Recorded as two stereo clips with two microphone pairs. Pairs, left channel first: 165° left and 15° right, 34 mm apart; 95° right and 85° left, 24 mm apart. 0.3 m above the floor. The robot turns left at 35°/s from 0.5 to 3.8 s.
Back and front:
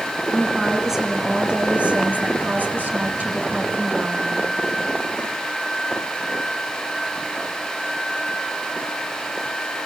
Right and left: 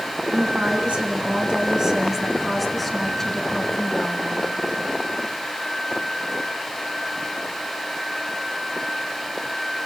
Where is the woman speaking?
80° left, 3 m; by 4.5 s 35° right, 3 m.